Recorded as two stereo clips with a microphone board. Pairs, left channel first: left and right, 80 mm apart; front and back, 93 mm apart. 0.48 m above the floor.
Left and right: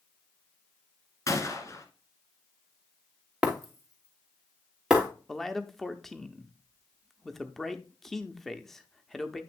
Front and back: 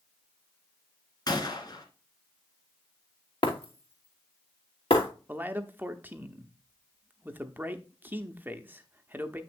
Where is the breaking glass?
5° right, 2.5 m.